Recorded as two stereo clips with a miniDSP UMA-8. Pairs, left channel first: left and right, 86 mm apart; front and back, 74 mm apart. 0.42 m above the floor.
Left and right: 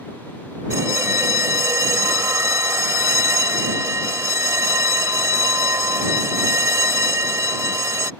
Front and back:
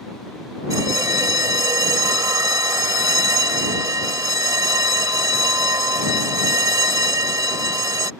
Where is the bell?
145° right.